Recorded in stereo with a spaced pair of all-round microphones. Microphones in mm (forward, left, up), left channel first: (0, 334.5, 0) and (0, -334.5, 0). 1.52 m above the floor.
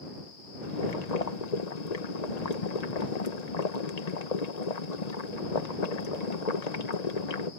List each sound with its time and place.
0.6 s boiling: 75° left (ahead or behind)